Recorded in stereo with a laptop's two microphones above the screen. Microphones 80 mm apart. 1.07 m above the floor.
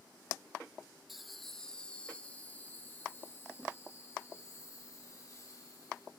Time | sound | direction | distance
1.1 | laughter | 5° right (ahead or behind) | 1.8 m